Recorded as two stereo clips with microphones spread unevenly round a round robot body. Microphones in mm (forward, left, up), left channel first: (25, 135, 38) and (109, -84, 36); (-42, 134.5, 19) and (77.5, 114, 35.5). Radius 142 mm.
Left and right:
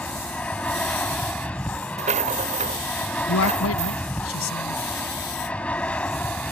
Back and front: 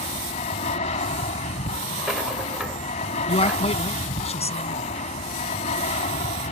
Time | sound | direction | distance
0.0 | an aircraft | 165° right | ?
2.0 | a rattle | 105° right | ?
3.3 | a man speaking | 145° left | ?